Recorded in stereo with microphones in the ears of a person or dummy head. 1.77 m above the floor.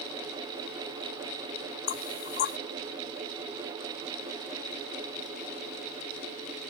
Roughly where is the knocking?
Left.